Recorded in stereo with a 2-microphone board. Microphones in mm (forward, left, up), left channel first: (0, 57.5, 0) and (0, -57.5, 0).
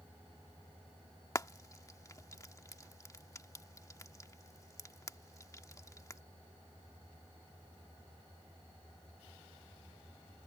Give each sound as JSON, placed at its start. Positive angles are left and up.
{"t": 1.4, "sound": "frying", "side_deg": 30}